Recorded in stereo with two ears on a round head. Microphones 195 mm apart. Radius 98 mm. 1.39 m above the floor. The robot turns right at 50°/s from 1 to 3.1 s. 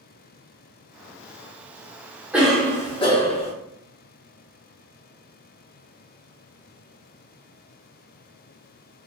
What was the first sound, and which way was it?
A cough, 5° right.